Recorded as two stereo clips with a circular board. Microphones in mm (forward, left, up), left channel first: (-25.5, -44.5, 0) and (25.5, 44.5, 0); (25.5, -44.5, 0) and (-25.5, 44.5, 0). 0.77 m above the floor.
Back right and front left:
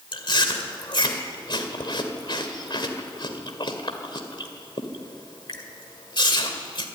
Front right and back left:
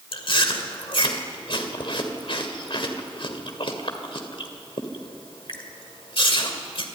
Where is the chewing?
85° right, 2 m.